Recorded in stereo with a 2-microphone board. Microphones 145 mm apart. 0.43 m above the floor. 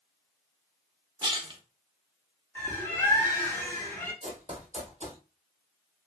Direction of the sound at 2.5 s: 15° left (ahead or behind).